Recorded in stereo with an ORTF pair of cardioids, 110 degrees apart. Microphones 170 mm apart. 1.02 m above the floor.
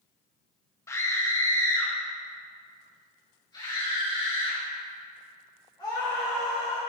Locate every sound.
0.9 s a scream: 15° left, 1.1 m; by 6.8 s 30° left, 4 m